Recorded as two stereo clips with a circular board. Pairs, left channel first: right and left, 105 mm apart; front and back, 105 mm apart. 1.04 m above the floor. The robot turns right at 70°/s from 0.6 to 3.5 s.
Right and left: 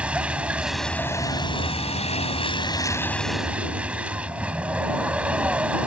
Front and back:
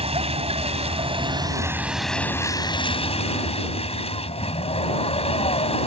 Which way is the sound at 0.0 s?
170° left.